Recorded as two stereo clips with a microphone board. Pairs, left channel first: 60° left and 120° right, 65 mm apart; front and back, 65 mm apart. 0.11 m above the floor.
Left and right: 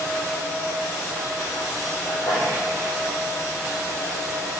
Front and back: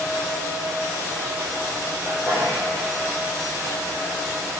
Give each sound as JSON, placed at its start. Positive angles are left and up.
{"t": 2.0, "sound": "a sneeze", "azimuth_deg": 80, "distance_m": 6.5}